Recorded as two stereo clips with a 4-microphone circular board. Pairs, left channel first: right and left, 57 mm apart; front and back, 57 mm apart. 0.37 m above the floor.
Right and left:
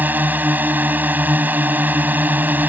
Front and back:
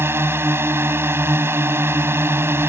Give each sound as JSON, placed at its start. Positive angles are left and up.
{"t": 0.0, "sound": "a drone", "azimuth_deg": 145}